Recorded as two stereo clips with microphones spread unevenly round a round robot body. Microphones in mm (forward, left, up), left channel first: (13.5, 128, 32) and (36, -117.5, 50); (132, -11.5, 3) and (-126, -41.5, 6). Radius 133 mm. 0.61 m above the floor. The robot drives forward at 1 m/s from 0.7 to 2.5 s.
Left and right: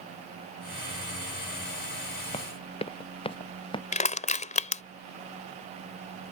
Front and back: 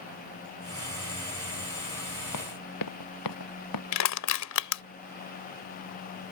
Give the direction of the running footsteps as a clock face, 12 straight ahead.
11 o'clock.